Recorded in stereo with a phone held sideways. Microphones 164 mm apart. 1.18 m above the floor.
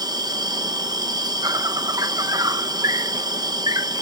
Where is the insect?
25° right (ahead or behind).